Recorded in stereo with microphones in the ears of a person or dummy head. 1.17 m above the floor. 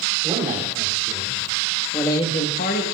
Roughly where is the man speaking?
Centre.